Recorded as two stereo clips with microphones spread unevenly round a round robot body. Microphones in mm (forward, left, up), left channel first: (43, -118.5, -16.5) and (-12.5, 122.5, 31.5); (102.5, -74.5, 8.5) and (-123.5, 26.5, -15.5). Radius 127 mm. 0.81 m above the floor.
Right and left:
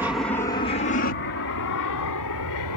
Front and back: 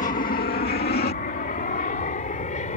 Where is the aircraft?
5° left; by 2.8 s 85° right.